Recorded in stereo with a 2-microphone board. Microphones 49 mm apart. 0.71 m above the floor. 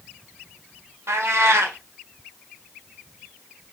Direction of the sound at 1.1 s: 70° right (ahead or behind).